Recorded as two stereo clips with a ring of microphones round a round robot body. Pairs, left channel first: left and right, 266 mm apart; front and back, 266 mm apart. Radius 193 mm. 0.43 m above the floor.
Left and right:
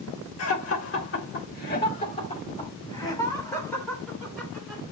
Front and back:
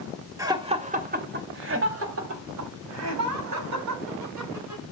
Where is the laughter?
105° left, 2 m; by 4.8 s straight behind, 5.5 m.